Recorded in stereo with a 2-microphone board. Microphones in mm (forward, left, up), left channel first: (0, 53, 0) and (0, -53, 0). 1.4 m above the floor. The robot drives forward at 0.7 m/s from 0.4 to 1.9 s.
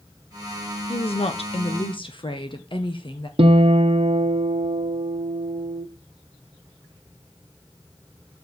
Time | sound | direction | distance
0.9 | a woman speaking | 65° left (ahead or behind) | 0.7 m
3.4 | a guitar | 60° right (ahead or behind) | 0.9 m